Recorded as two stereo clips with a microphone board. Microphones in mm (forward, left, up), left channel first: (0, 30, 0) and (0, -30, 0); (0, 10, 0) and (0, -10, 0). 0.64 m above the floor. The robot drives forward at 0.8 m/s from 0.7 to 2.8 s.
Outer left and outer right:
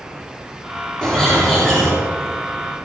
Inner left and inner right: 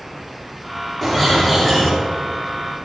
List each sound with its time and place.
1.0 s a bird: 10° left (ahead or behind), 7.5 m